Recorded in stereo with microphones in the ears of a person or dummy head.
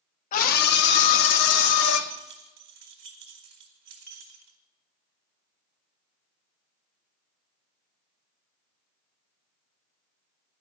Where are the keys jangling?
50° right (ahead or behind), 1.7 m.